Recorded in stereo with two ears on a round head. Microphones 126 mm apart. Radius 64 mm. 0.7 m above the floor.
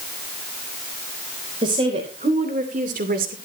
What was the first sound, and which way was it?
A woman speaking, 35° right (ahead or behind).